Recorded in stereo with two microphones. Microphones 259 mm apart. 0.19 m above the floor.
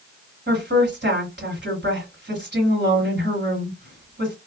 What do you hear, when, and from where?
0.5 s a woman speaking: 45° right (ahead or behind), 2 m